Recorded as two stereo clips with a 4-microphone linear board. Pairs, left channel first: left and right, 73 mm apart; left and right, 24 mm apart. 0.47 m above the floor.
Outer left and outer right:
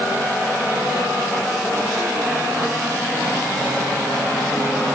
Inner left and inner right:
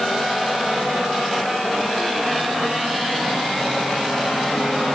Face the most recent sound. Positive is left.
No sound to turn to.